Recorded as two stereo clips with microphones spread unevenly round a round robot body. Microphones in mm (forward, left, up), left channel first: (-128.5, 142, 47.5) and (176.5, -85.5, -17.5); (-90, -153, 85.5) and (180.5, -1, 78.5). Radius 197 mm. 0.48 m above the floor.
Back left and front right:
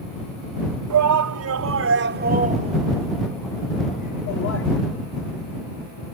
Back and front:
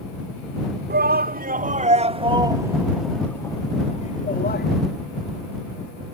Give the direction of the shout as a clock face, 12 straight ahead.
1 o'clock.